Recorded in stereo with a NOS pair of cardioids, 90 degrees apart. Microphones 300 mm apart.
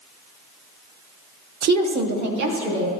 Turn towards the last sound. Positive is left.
turn(degrees=-65)